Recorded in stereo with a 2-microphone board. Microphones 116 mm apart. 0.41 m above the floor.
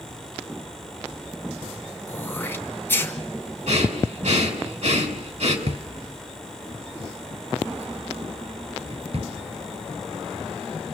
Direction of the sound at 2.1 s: 20° left (ahead or behind).